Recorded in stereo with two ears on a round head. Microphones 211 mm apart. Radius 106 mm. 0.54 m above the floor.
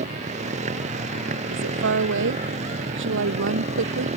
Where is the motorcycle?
30° right (ahead or behind).